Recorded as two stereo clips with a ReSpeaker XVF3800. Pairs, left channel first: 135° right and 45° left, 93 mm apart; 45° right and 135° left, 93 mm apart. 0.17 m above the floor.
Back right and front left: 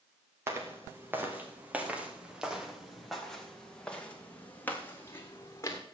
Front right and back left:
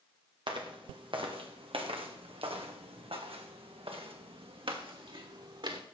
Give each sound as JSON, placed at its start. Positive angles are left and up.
{"t": 0.5, "sound": "footsteps", "azimuth_deg": 105, "distance_m": 3.0}